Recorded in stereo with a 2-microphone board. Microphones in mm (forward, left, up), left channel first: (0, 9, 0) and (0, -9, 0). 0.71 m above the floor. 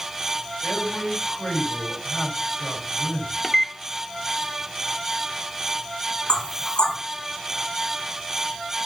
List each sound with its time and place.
0.6 s a man speaking: 60° left (ahead or behind), 6.5 m
3.4 s a microwave: 15° left (ahead or behind), 0.5 m
6.3 s knocking: 70° left (ahead or behind), 5.5 m